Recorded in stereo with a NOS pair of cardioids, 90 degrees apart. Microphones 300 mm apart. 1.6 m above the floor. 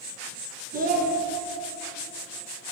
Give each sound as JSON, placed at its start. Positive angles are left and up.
{"t": 0.7, "sound": "a child speaking", "azimuth_deg": -30, "distance_m": 1.3}